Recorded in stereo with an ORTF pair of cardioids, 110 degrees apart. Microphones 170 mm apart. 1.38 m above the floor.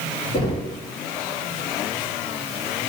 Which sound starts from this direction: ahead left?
Knocking, at 0.3 s.